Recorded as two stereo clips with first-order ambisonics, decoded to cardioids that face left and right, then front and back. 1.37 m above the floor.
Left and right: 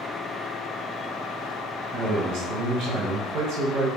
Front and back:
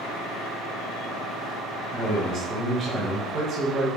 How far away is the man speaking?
About 0.8 m.